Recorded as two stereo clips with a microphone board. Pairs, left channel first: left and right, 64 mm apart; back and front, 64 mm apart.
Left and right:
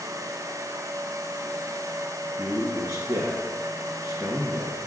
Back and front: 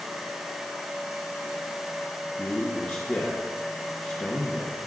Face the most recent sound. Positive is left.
turn(degrees=-115)